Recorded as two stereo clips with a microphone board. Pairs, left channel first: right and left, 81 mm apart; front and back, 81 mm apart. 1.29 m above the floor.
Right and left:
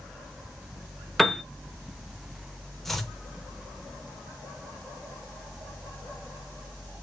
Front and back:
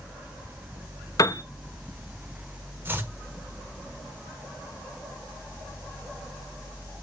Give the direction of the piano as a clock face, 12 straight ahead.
12 o'clock.